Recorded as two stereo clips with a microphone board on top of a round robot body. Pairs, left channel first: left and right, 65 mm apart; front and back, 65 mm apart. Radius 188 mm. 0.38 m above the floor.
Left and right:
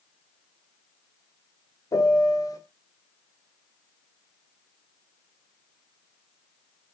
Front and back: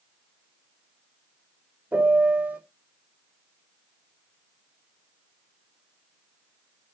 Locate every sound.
1.9 s a piano: 115° left, 1.9 m